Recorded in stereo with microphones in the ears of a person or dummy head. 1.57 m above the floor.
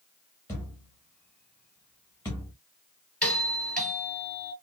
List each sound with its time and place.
0.5 s a thud: 10° left (ahead or behind), 1.2 m
3.2 s a doorbell: 10° left (ahead or behind), 2 m